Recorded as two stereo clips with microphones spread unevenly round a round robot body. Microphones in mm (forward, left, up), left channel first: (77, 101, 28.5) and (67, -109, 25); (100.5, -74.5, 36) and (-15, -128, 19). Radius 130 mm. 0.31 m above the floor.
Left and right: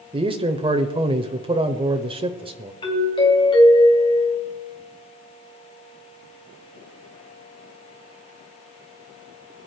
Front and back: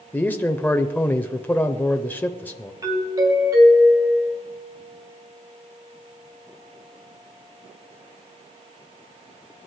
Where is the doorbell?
150° left, 2.5 m.